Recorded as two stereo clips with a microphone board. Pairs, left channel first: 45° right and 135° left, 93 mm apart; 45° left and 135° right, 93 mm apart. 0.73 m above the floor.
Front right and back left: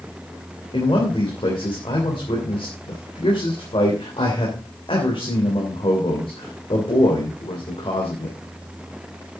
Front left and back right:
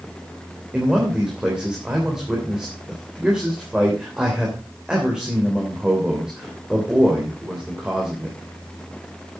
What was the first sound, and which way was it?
A man speaking, 55° right.